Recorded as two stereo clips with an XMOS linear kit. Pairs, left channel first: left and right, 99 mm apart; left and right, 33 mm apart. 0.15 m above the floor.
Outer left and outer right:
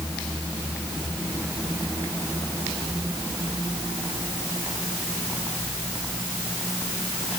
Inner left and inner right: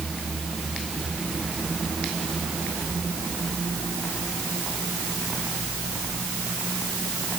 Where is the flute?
No flute in this recording.